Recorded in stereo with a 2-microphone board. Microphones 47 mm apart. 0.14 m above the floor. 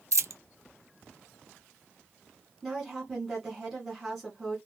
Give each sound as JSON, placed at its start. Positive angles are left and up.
{"t": 0.1, "sound": "a dropped coin", "side_deg": -85, "distance_m": 0.5}
{"t": 2.6, "sound": "a woman speaking", "side_deg": 0, "distance_m": 1.7}